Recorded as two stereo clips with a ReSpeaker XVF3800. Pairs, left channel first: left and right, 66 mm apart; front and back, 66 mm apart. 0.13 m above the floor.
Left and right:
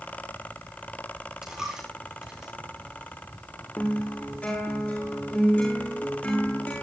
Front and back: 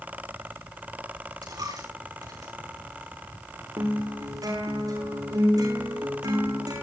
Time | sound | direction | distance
1.4 | a dropped coin | 170° right | 7 m
3.8 | a guitar | 160° left | 8 m